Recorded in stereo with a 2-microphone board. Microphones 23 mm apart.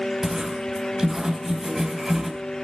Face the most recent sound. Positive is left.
turn(degrees=-15)  # may be behind; listen again after turning